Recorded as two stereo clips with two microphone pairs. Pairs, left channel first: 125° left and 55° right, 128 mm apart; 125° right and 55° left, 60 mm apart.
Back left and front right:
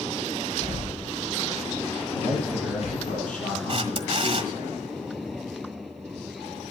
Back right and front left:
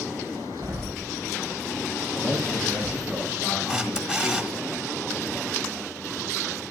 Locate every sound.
0.6 s a door slam: 90° left, 7 m
2.1 s a man speaking: 115° left, 8 m
3.7 s a camera shutter: 20° right, 1.4 m